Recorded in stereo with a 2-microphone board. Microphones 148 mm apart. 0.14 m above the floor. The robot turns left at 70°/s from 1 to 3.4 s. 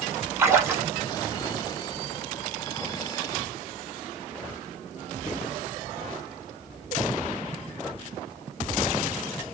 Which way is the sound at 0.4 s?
20° right (ahead or behind).